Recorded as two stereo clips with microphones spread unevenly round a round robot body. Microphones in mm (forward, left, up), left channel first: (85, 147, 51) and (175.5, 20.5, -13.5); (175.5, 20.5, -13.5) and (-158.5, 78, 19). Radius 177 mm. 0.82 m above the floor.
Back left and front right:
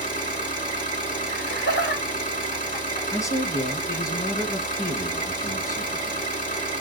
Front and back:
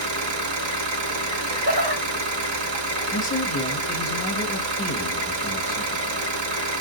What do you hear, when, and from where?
0.0 s an engine running: 130° left, 1.2 m
1.3 s laughter: 110° left, 1.6 m
3.1 s a man speaking: 35° left, 1.1 m